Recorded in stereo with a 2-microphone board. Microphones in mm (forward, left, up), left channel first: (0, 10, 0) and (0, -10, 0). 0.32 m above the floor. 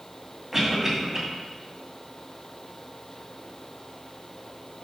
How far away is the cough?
About 1.9 m.